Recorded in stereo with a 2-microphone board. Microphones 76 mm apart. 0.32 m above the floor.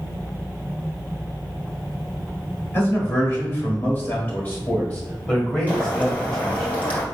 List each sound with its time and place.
2.7 s a man speaking: 30° left (ahead or behind), 1.6 m; by 6.7 s 10° left (ahead or behind), 2.5 m
5.7 s boiling: 20° left (ahead or behind), 2 m